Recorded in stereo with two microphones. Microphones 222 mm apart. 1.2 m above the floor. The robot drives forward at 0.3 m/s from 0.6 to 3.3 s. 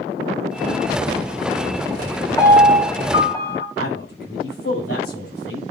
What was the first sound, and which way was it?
A piano, 15° left (ahead or behind).